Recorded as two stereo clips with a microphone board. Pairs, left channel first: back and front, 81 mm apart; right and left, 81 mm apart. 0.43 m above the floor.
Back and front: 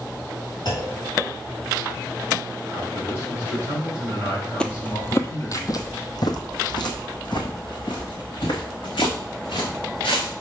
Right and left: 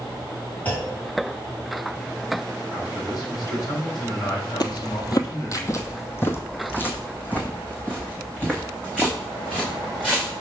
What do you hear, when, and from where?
0.7 s a clunk: 160° right, 3 m
2.7 s a man speaking: 125° right, 3 m
4.6 s footsteps: 100° right, 0.7 m; by 10.3 s 170° right, 3.5 m